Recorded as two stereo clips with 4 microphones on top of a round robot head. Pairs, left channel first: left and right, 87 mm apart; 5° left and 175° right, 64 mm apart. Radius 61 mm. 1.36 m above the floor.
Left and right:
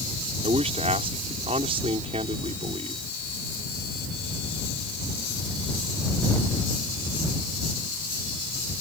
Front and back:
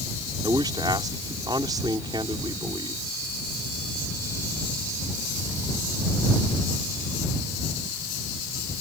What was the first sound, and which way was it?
A man speaking, 125° right.